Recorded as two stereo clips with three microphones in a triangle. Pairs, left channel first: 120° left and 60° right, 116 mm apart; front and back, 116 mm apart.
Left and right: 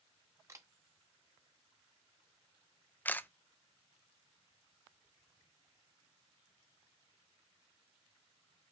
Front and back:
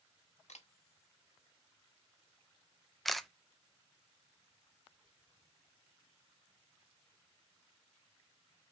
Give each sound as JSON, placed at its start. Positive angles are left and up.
{"t": 0.5, "sound": "a camera shutter", "azimuth_deg": 5, "distance_m": 1.1}
{"t": 3.0, "sound": "a camera shutter", "azimuth_deg": 85, "distance_m": 0.5}